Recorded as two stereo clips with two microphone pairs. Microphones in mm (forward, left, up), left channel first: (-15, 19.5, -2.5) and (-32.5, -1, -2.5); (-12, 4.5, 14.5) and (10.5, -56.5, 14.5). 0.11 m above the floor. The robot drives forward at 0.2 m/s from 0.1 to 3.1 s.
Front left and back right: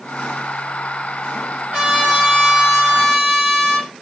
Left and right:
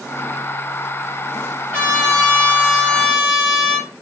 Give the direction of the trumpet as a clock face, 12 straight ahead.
6 o'clock.